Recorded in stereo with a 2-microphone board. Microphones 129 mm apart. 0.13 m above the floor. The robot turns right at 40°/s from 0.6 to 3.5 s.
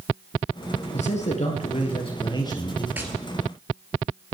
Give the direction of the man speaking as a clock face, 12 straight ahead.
9 o'clock.